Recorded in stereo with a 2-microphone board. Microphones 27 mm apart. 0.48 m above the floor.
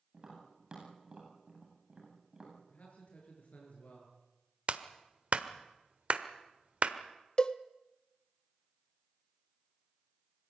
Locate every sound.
0.1 s tapping: 30° right (ahead or behind), 10 m
2.7 s a man speaking: 60° left (ahead or behind), 10 m
4.7 s a clap: 45° right (ahead or behind), 1.3 m
7.4 s a cowbell: 35° left (ahead or behind), 0.7 m